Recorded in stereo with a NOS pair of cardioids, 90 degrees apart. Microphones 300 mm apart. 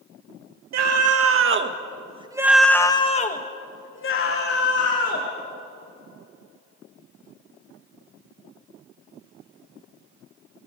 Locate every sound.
0.7 s a scream: 60° right, 3 m; by 5.3 s 55° left, 4.5 m